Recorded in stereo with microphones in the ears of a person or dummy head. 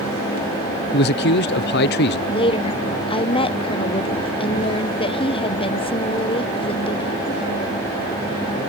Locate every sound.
0.9 s a man speaking: 55° left (ahead or behind)
2.3 s a woman speaking: 25° left (ahead or behind)